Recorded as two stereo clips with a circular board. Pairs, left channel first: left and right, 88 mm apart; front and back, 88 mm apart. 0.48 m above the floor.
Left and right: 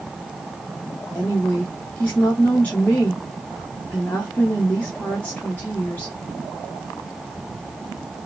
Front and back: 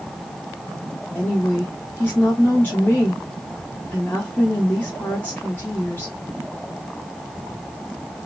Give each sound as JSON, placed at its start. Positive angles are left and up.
{"t": 1.1, "sound": "a woman speaking", "azimuth_deg": 40, "distance_m": 0.7}